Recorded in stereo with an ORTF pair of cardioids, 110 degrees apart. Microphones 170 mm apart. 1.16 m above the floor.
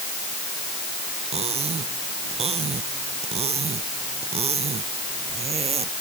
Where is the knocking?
I don't hear knocking.